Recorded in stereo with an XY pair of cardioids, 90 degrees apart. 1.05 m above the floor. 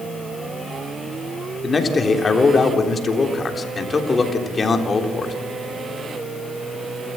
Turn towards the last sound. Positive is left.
turn(degrees=40)